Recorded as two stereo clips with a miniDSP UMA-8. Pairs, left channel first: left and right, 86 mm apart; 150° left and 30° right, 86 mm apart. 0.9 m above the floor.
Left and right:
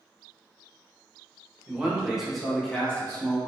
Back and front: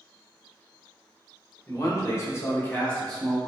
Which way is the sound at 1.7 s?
165° right.